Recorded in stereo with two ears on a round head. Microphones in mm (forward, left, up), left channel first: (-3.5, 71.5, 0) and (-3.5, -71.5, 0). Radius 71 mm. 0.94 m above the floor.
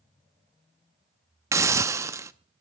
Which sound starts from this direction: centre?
A hiss, at 1.5 s.